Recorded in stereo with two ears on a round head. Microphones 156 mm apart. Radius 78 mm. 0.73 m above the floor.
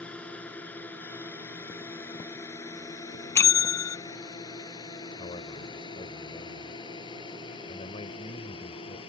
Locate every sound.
0.0 s a drone: 5° left (ahead or behind); by 9.1 s 30° left (ahead or behind)
3.4 s a bell: 15° left (ahead or behind)
5.2 s a man speaking: 35° left (ahead or behind)